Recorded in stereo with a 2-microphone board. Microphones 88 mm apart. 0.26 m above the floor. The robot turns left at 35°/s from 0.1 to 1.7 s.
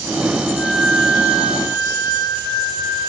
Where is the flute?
165° left, 1.1 m; by 3.1 s 125° left, 1.1 m.